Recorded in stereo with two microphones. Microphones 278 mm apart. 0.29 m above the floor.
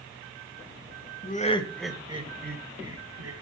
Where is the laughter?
30° left (ahead or behind), 1.4 m; by 3.3 s 60° right (ahead or behind), 1.9 m.